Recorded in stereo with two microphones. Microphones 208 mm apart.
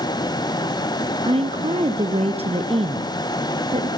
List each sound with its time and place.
1.2 s a woman speaking: 30° right (ahead or behind), 1.2 m